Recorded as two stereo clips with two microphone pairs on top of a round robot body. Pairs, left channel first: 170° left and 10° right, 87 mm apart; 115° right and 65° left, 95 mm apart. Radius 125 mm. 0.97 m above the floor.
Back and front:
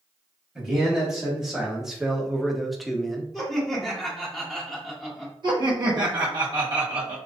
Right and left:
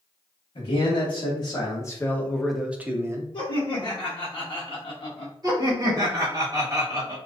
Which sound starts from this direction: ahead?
Laughter, at 5.4 s.